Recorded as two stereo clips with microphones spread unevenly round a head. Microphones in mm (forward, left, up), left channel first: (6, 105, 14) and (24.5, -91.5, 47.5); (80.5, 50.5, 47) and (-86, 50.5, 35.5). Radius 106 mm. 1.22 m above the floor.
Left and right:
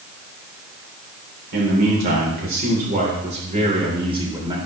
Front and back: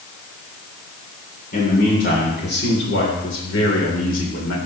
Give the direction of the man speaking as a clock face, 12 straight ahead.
2 o'clock.